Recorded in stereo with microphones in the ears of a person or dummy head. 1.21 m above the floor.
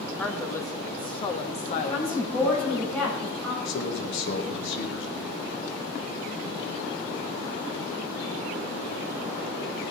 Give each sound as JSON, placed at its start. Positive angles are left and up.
{"t": 0.2, "sound": "a woman speaking", "side_deg": 10, "distance_m": 1.6}
{"t": 1.8, "sound": "a woman speaking", "side_deg": 5, "distance_m": 5.5}
{"t": 3.6, "sound": "a man speaking", "side_deg": 65, "distance_m": 1.6}